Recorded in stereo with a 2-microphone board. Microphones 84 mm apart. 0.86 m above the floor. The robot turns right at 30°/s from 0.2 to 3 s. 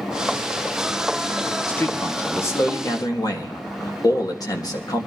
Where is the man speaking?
20° left, 1.5 m; by 5.1 s 60° left, 1.5 m.